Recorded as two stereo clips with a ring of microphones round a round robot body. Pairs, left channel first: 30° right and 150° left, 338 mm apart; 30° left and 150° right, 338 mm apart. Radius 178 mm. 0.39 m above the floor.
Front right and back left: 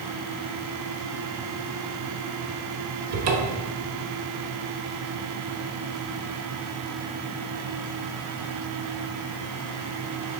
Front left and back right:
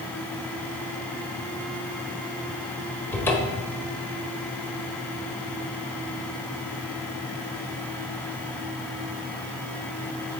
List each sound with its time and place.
3.1 s a cupboard door: 115° left, 1.3 m